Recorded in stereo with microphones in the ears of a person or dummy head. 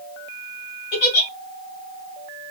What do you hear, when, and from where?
0.9 s a giggle: 55° left (ahead or behind), 1.9 m